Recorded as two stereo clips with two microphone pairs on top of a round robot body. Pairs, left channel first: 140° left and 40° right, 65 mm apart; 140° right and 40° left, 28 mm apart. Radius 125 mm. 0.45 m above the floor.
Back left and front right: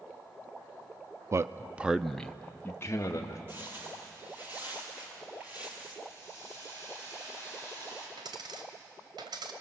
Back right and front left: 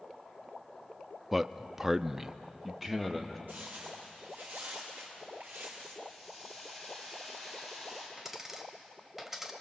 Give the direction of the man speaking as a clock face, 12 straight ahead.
2 o'clock.